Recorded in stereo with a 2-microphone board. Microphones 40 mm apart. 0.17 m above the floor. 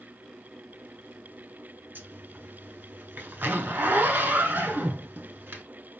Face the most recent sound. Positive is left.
turn(degrees=-60)  # may be behind; listen again after turning